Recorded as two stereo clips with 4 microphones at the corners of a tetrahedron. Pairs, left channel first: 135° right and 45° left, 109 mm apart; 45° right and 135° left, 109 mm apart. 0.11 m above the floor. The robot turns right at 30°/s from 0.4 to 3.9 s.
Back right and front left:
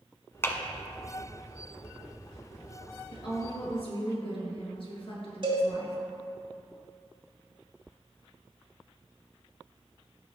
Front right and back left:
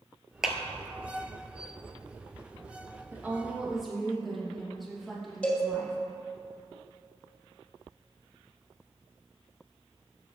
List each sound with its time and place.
0.4 s a clap: 150° right, 0.9 m; by 0.6 s 145° right, 0.9 m
3.1 s a woman speaking: 160° right, 2.5 m; by 6.0 s 135° right, 2.5 m
5.4 s a cowbell: 30° left, 2 m